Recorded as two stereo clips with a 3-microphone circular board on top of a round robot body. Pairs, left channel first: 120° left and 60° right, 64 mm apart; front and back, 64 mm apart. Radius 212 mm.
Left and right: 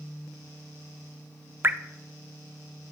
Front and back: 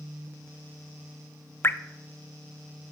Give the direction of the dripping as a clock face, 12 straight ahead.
1 o'clock.